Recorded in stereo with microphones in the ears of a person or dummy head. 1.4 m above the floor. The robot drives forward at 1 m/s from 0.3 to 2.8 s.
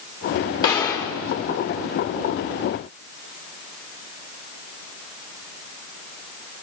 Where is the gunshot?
25° left (ahead or behind), 1.4 m; by 1.2 s 20° left (ahead or behind), 1.8 m.